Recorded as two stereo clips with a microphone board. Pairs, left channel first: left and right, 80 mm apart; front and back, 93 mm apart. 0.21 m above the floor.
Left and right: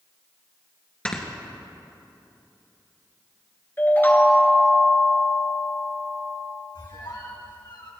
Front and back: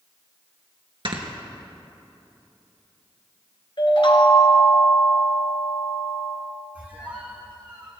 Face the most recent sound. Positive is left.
turn(degrees=105)